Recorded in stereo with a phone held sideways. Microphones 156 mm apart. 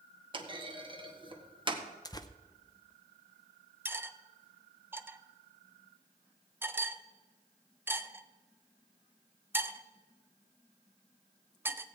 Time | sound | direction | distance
0.3 | a clunk | 35° right (ahead or behind) | 1.2 m
2.0 | tearing paper | 25° left (ahead or behind) | 0.6 m
3.9 | cutlery clinking | 15° right (ahead or behind) | 0.6 m